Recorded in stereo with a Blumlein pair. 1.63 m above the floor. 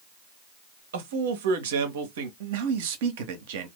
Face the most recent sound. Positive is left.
turn(degrees=-50)